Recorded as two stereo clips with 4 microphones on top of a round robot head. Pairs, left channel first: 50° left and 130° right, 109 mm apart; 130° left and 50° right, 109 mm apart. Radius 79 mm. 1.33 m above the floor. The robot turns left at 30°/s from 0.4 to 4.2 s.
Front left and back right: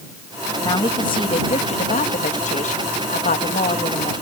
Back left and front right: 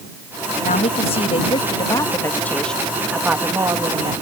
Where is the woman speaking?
110° left; by 4.1 s 5° left.